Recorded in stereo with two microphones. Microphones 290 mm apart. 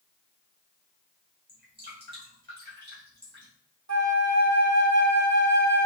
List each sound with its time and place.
1.5 s dripping: 35° right (ahead or behind), 2.5 m
3.9 s a flute: 65° right (ahead or behind), 0.8 m